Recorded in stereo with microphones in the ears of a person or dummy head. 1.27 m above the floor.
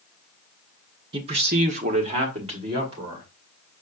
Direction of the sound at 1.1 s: 25° right (ahead or behind).